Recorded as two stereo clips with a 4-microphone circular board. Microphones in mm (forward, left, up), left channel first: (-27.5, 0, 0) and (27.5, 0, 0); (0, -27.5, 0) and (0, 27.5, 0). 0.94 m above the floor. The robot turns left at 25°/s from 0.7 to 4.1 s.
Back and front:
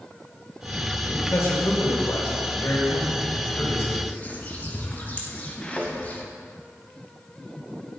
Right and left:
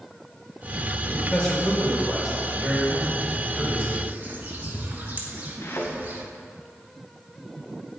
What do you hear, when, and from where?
1.1 s a man speaking: 155° right, 5 m; by 4.1 s 130° left, 5 m
4.1 s a bird: 135° left, 2 m
5.6 s a thud: 110° right, 2.5 m